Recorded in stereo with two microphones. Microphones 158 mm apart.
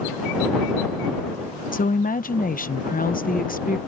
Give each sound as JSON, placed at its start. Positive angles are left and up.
{"t": 1.7, "sound": "a woman speaking", "side_deg": 65}